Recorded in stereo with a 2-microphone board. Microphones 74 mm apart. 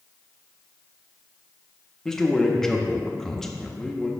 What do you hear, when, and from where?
2.0 s a man speaking: 5° left (ahead or behind), 0.9 m